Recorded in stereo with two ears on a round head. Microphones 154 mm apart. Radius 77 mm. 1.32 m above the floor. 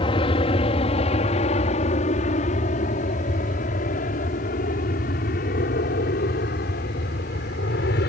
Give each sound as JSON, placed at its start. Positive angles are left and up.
{"t": 0.0, "sound": "an aircraft", "side_deg": 30}